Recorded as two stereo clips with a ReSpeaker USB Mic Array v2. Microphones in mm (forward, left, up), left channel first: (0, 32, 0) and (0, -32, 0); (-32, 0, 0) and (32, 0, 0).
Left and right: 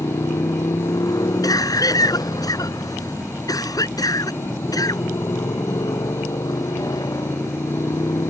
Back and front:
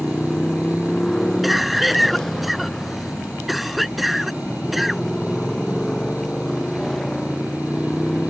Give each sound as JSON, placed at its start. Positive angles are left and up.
{"t": 0.0, "sound": "a motorcycle", "azimuth_deg": 95}
{"t": 1.4, "sound": "a cough", "azimuth_deg": 90}